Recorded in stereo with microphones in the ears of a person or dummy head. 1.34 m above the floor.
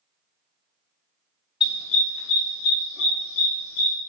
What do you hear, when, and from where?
1.6 s a dog barking: 30° left (ahead or behind), 1.6 m; by 4.0 s 75° left (ahead or behind), 2.5 m